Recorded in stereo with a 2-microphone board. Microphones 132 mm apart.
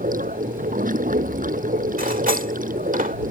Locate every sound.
0.0 s running water: 80° right
2.0 s cutlery clinking: 80° right